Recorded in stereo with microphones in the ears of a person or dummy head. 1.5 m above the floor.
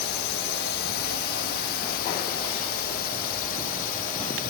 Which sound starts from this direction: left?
A drone, at 0.0 s.